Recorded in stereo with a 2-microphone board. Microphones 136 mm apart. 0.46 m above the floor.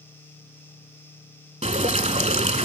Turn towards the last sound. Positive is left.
turn(degrees=-50)  # may be behind; listen again after turning